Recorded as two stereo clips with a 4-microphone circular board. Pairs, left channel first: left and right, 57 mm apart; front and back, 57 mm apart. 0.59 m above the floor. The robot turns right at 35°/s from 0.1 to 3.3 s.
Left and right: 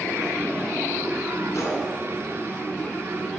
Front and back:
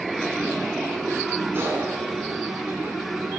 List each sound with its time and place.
1.5 s a gunshot: 125° left, 3 m; by 1.9 s 140° left, 3 m